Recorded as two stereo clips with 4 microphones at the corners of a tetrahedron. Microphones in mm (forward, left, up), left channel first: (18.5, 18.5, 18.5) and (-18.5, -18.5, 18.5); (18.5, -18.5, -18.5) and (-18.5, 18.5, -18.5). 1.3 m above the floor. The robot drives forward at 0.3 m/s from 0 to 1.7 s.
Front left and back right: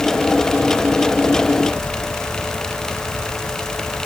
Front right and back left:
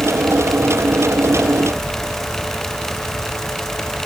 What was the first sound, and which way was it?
Only background noise.